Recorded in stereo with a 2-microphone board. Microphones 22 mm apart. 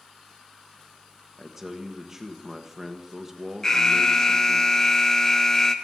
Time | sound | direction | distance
1.4 | a man speaking | 15° right (ahead or behind) | 1.4 m
3.6 | an alarm | 25° left (ahead or behind) | 1.1 m